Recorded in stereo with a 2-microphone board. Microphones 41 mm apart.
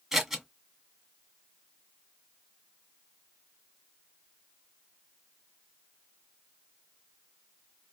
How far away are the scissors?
About 1.2 m.